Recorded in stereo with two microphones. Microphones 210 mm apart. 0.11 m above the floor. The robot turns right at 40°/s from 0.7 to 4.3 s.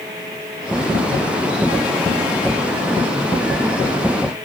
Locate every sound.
Only background noise.